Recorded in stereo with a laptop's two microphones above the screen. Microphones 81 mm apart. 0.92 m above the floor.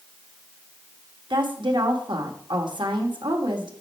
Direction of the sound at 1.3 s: 75° right (ahead or behind).